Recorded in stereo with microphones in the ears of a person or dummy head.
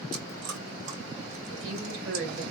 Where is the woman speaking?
75° right (ahead or behind), 2 m.